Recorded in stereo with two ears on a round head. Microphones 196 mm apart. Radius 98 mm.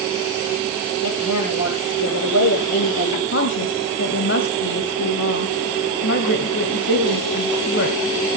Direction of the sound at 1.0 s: 80° left.